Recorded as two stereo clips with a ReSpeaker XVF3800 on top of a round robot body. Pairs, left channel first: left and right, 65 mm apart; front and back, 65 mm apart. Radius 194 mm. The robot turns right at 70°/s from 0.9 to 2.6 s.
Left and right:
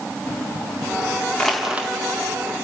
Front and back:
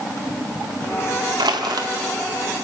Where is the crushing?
170° left, 1.8 m; by 1.9 s 155° right, 1.8 m.